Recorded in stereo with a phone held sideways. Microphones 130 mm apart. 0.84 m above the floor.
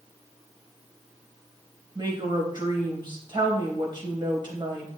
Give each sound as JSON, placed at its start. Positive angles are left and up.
{"t": 1.9, "sound": "a woman speaking", "side_deg": -35, "distance_m": 4.0}